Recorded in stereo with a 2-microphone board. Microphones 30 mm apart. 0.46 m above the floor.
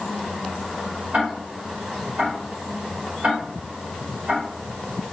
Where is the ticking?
55° right (ahead or behind), 1.4 m.